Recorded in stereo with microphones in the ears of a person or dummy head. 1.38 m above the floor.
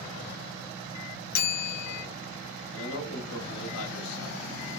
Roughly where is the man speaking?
Left.